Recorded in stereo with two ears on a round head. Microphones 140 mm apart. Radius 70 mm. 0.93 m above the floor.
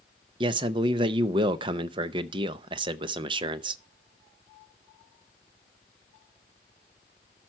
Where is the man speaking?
30° right (ahead or behind), 0.6 m.